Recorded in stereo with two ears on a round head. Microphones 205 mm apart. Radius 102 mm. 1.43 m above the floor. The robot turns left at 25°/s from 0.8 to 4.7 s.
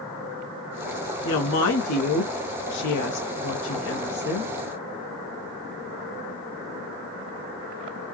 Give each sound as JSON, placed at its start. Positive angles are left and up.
{"t": 1.2, "sound": "a woman speaking", "azimuth_deg": 120, "distance_m": 1.0}